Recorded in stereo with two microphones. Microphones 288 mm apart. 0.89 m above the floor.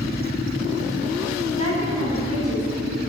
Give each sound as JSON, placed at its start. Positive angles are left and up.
{"t": 1.6, "sound": "a woman speaking", "side_deg": -55, "distance_m": 5.5}